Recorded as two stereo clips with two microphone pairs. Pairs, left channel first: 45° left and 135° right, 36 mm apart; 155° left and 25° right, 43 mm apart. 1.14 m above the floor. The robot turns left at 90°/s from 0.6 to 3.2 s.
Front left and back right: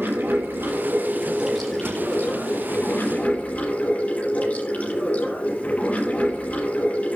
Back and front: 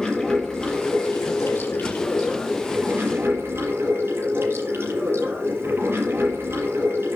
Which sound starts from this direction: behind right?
Running water, at 0.0 s.